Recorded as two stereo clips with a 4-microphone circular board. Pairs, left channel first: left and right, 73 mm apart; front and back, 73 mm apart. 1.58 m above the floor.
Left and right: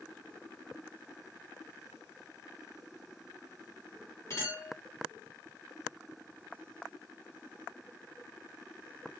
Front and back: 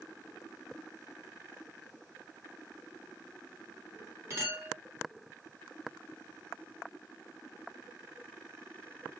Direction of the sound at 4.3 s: 130° left.